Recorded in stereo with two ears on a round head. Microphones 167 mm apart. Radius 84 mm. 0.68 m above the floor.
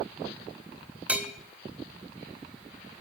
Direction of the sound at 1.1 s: 5° right (ahead or behind).